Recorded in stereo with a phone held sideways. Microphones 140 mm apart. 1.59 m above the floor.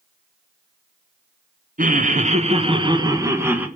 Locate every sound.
1.8 s laughter: 70° right (ahead or behind), 1.5 m; by 3.7 s 10° right (ahead or behind), 1.7 m